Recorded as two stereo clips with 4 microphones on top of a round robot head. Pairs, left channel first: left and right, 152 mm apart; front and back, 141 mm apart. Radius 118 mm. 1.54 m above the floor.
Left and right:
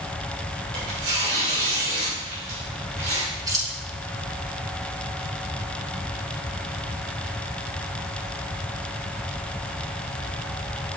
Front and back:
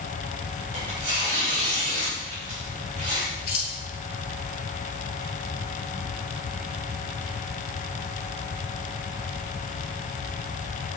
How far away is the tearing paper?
About 3 m.